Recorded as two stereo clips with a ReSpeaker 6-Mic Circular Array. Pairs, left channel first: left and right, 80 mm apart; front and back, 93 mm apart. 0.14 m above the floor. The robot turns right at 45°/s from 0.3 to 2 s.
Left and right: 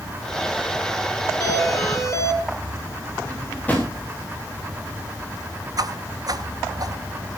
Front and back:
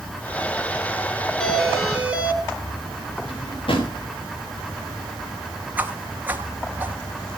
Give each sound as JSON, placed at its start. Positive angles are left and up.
{"t": 1.4, "sound": "a doorbell", "azimuth_deg": 80, "distance_m": 3.0}
{"t": 3.2, "sound": "a drawer", "azimuth_deg": 20, "distance_m": 5.5}
{"t": 5.8, "sound": "a whoosh", "azimuth_deg": -110, "distance_m": 1.4}